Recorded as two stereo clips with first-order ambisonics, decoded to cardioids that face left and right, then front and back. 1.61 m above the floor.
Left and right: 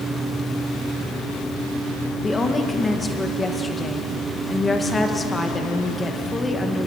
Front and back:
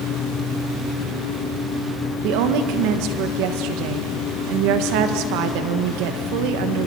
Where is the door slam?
I don't hear a door slam.